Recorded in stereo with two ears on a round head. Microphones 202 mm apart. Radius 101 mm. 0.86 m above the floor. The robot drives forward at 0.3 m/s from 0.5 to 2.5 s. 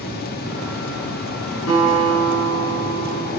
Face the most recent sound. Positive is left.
turn(degrees=75)  # may be behind; listen again after turning